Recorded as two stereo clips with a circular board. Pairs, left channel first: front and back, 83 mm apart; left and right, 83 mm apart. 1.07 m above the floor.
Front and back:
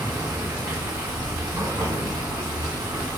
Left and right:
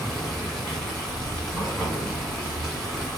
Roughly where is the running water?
Behind.